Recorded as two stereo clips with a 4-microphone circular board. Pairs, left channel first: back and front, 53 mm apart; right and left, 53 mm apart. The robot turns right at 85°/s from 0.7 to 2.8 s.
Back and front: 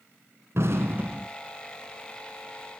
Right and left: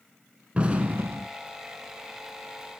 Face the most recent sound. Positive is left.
turn(degrees=-160)